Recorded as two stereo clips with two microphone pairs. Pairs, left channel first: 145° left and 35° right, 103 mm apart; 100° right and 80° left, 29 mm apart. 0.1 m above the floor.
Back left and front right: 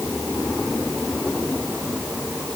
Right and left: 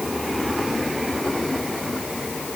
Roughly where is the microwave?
No microwave in this recording.